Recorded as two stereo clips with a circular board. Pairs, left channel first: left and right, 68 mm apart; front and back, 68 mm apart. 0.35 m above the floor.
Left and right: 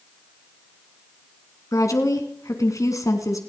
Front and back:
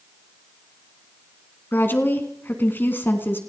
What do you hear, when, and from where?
1.7 s a woman speaking: 55° left, 3.5 m